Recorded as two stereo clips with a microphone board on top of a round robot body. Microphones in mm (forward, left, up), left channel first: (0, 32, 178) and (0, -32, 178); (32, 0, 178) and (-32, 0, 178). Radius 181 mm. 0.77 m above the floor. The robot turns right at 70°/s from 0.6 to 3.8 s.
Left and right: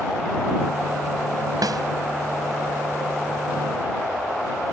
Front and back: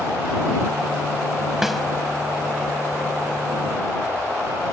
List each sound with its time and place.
1.6 s a snare drum: 95° right; by 1.8 s 85° right